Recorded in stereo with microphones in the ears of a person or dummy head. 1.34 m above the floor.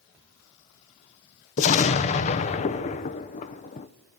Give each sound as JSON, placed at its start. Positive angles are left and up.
{"t": 1.6, "sound": "an explosion", "side_deg": 35, "distance_m": 0.8}